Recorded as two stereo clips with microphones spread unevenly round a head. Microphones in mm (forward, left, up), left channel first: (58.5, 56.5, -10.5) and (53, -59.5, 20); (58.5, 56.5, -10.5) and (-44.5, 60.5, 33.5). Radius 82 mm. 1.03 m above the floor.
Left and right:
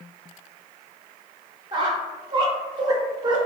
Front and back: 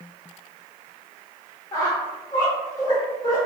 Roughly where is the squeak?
Right.